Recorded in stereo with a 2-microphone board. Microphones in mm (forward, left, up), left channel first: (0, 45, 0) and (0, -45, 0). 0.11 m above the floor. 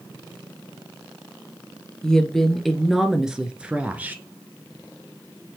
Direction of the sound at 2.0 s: 10° left (ahead or behind).